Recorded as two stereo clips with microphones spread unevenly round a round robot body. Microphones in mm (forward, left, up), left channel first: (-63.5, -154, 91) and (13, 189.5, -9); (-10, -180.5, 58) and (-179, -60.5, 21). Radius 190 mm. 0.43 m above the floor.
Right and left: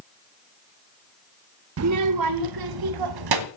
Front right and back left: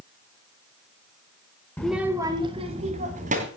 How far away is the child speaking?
About 0.6 m.